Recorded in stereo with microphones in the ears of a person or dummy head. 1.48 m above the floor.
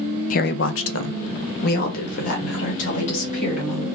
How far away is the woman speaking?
About 0.5 m.